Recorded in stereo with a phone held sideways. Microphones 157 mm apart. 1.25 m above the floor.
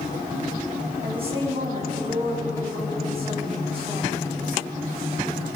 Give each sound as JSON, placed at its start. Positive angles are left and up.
{"t": 1.0, "sound": "a woman speaking", "side_deg": -35, "distance_m": 7.5}